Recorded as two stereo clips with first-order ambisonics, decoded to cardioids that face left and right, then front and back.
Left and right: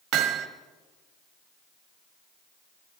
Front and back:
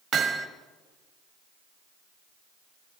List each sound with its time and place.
0.1 s hammering: 125° right, 1.1 m